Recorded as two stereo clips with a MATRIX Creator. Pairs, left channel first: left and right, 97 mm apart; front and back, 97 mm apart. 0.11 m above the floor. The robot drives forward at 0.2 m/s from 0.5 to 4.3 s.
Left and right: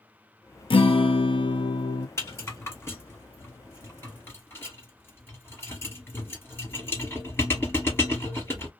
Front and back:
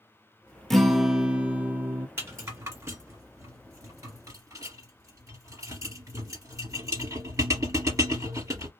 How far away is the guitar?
About 0.6 m.